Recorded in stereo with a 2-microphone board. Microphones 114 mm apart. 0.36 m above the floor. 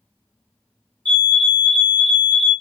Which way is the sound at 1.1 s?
10° left (ahead or behind).